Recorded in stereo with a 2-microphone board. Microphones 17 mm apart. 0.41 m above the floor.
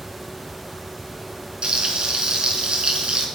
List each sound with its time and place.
1.6 s frying: 60° right (ahead or behind), 4 m